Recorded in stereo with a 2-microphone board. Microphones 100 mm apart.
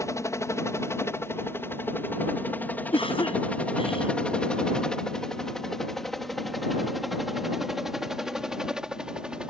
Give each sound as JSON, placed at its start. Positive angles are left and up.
{"t": 0.0, "sound": "a helicopter", "side_deg": 30}
{"t": 2.9, "sound": "a cough", "side_deg": 65}